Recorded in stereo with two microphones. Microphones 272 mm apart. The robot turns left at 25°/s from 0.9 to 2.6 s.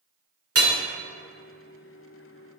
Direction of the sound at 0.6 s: 60° right (ahead or behind).